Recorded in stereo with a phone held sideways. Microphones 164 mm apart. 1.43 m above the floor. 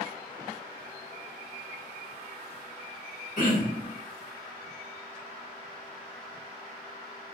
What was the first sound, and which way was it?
Throat clearing, 50° left (ahead or behind).